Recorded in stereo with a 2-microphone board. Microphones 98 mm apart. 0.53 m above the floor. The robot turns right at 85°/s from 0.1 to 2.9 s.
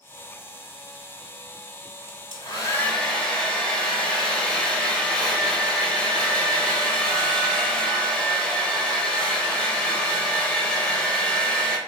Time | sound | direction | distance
2.1 | a hair dryer | 100° left | 1.0 m